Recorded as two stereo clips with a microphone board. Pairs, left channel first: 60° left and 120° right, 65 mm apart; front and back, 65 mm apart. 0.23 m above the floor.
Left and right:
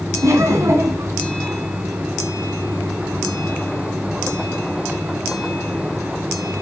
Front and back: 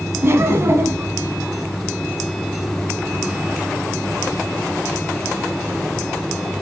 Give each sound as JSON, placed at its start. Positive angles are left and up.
{"t": 0.2, "sound": "laughter", "azimuth_deg": -140, "distance_m": 1.6}